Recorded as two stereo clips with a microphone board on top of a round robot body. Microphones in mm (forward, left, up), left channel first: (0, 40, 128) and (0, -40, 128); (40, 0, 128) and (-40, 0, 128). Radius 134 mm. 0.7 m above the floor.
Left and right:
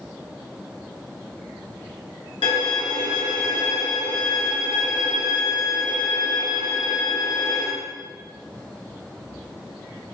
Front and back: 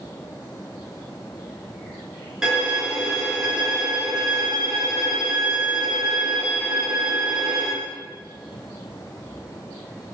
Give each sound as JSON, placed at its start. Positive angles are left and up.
{"t": 2.4, "sound": "a violin", "azimuth_deg": 95, "distance_m": 2.5}